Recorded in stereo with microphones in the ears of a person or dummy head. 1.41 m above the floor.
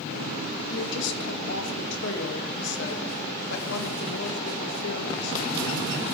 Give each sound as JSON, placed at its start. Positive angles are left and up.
{"t": 0.7, "sound": "a woman speaking", "side_deg": 70, "distance_m": 1.8}